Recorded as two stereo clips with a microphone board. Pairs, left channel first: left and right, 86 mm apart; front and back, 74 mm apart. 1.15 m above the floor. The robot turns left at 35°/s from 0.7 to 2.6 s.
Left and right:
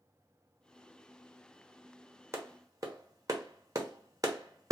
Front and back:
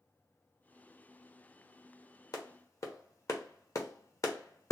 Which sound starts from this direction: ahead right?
A clap, at 2.3 s.